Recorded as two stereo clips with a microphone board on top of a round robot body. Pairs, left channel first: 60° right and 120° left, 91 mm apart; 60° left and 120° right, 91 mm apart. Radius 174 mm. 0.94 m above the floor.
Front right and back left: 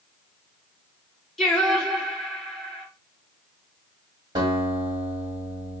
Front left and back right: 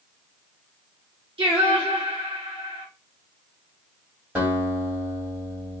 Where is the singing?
150° right, 1.5 m.